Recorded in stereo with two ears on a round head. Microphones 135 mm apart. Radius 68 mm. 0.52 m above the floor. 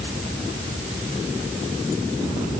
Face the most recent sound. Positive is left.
No sound to turn to.